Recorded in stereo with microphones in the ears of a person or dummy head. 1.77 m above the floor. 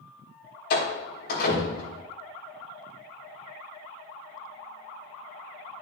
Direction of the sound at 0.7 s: 65° left (ahead or behind).